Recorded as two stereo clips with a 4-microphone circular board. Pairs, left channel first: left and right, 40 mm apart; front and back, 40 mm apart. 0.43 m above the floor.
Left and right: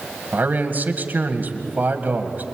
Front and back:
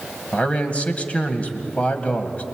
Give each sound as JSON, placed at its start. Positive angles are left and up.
{"t": 0.3, "sound": "a man speaking", "azimuth_deg": -55, "distance_m": 2.0}